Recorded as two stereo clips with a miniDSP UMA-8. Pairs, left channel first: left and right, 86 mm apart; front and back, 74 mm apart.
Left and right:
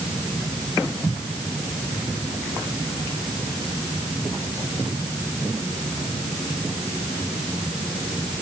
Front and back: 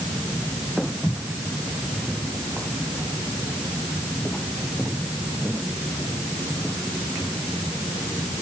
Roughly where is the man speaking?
I don't hear a man speaking.